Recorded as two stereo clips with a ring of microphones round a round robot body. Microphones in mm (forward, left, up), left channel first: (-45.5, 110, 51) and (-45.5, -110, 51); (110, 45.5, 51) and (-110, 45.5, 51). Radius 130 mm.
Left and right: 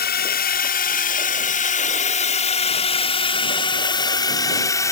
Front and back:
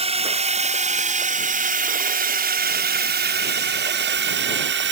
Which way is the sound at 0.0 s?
125° left.